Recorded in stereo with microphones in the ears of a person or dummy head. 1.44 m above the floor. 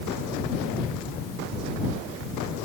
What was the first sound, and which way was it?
Only background noise.